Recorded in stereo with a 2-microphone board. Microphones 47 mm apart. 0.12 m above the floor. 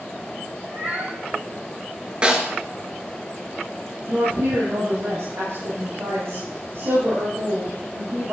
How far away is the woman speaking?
About 5 m.